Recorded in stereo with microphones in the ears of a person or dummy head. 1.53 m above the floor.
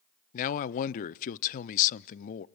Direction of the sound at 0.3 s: 45° left (ahead or behind).